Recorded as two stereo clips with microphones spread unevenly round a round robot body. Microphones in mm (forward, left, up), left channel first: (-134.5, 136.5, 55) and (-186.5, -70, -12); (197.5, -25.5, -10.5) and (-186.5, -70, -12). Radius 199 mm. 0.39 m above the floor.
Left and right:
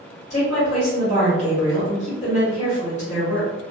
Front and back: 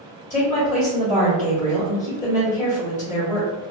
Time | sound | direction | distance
0.3 | a woman speaking | 30° left | 1.1 m